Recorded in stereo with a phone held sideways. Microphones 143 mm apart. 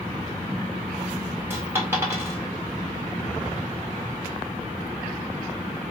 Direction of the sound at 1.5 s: 15° right (ahead or behind).